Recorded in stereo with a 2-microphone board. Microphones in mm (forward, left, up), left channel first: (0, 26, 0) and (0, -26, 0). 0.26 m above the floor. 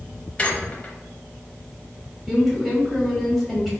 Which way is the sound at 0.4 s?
25° left (ahead or behind).